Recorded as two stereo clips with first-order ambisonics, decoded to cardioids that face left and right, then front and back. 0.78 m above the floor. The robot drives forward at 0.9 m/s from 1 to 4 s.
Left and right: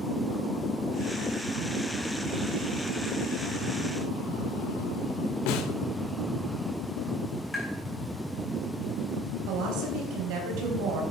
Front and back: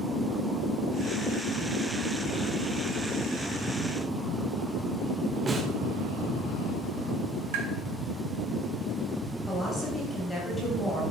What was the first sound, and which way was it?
A snare drum, 105° left.